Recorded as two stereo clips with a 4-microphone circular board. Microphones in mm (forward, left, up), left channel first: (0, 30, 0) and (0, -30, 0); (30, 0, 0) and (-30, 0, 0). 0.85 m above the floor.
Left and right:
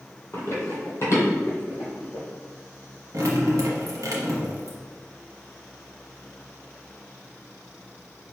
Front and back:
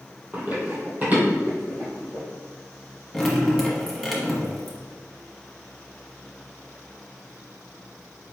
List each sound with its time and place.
0.3 s running footsteps: 125° left, 1.4 m; by 2.2 s 120° left, 2.5 m
3.1 s dripping: 85° right, 1.1 m